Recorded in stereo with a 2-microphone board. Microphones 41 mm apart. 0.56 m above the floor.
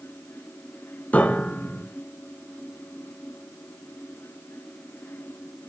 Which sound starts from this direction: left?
A piano, at 1.1 s.